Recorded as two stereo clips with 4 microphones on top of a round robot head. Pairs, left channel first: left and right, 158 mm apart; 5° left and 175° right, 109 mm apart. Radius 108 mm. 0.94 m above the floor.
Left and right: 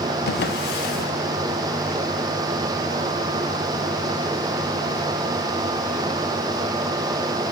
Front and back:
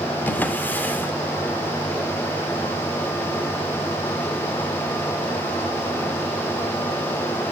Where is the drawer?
80° left, 1.0 m.